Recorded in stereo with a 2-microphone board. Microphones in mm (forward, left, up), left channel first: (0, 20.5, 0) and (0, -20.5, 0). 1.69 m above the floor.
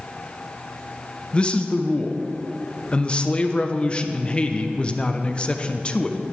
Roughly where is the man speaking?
Left.